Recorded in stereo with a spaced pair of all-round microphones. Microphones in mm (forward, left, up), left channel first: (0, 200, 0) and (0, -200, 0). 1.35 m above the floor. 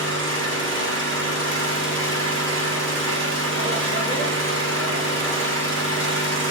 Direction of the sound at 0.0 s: 30° right (ahead or behind).